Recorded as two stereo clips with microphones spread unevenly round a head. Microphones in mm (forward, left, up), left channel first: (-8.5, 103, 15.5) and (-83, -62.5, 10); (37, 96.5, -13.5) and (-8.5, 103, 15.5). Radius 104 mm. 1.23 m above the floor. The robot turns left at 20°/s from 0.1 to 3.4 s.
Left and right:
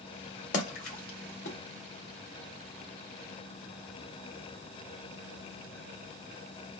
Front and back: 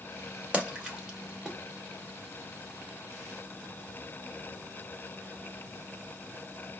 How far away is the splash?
About 2 m.